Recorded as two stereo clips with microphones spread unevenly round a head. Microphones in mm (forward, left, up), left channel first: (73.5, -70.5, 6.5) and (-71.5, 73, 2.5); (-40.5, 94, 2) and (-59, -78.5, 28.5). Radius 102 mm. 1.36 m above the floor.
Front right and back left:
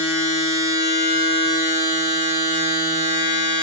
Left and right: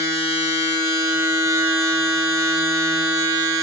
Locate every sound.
0.0 s a machine running: 165° right, 3.5 m